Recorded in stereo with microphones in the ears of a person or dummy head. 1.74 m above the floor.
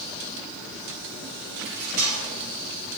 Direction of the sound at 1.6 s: 55° right (ahead or behind).